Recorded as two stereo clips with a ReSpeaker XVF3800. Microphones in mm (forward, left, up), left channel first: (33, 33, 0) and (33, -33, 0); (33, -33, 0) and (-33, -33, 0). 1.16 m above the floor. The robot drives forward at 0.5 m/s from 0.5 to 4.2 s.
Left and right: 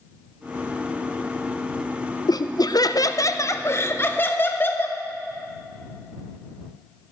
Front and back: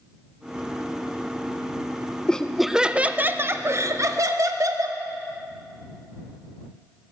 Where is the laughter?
75° left, 0.6 m; by 5.0 s 145° left, 1.0 m.